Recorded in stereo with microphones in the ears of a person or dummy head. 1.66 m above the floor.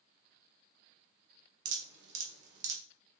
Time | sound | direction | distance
1.6 | dripping | 70° right (ahead or behind) | 3.5 m